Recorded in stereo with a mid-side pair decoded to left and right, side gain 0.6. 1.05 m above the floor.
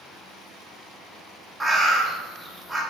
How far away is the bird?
About 0.8 m.